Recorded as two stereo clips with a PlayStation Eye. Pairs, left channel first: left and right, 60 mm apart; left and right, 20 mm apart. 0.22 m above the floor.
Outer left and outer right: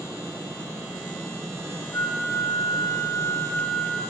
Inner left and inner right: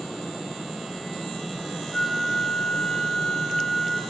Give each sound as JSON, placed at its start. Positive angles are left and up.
{"t": 1.9, "sound": "a flute", "side_deg": 55, "distance_m": 2.5}